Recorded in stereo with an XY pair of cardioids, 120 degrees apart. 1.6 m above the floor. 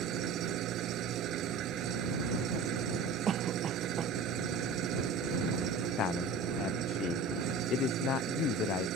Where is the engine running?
65° right.